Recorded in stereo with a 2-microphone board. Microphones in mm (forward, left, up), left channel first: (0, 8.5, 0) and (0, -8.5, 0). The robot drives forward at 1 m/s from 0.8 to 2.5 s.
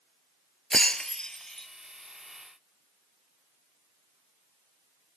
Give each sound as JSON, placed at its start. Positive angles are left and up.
{"t": 0.7, "sound": "breaking glass", "side_deg": 50}